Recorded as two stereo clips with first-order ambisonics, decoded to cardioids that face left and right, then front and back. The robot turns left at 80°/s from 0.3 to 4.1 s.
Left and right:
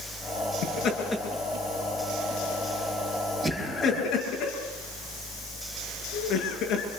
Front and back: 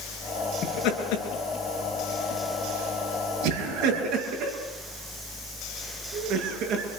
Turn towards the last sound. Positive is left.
turn(degrees=140)